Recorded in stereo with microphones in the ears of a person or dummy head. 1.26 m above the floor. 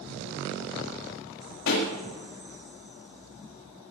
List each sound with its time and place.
1.7 s a pop: 70° left (ahead or behind), 3 m